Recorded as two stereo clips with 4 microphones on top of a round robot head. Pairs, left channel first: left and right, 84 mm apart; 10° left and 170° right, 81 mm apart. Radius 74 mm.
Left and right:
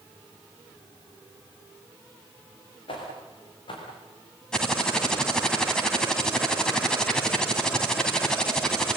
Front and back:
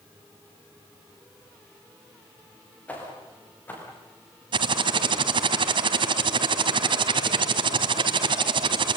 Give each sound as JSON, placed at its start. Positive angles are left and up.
{"t": 2.9, "sound": "footsteps", "azimuth_deg": 80, "distance_m": 9.0}
{"t": 4.5, "sound": "typing on a keyboard", "azimuth_deg": 175, "distance_m": 2.5}